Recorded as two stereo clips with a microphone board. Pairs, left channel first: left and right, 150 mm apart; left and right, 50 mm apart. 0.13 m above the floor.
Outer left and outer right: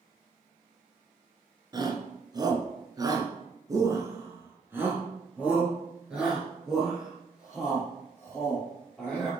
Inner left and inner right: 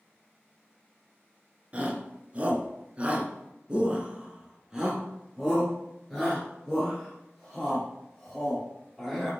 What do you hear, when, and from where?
1.7 s a shout: 30° right (ahead or behind), 1.7 m; by 9.3 s 5° left (ahead or behind), 3.5 m